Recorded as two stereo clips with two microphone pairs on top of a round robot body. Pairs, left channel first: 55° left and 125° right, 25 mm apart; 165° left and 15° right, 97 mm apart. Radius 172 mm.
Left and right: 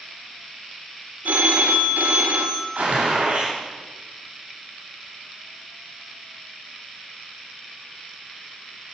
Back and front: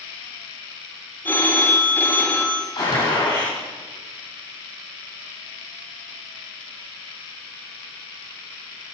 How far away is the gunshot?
About 9 m.